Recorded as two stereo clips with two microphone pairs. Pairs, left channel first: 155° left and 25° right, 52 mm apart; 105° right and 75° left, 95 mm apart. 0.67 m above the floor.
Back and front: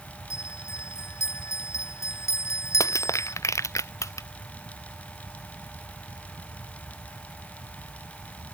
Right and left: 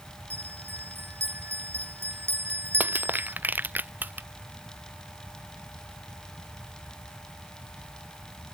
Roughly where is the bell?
Behind left.